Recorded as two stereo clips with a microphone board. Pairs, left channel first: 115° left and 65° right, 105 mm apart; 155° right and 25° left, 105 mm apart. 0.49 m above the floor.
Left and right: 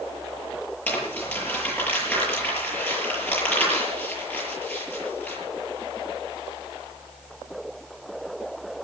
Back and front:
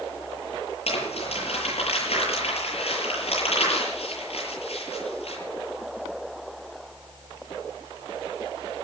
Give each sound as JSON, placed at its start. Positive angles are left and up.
{"t": 0.9, "sound": "crumpling", "azimuth_deg": -175, "distance_m": 8.5}